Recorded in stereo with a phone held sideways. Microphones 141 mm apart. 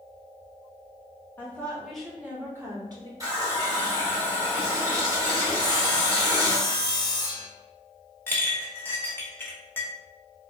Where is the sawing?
30° left (ahead or behind), 0.7 m.